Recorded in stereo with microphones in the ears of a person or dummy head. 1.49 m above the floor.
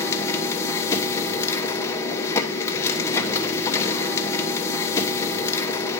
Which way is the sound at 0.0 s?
15° left (ahead or behind).